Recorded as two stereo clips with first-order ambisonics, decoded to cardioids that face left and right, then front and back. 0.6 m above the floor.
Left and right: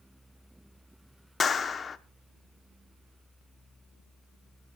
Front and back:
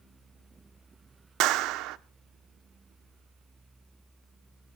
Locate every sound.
1.4 s a clap: 160° left, 0.8 m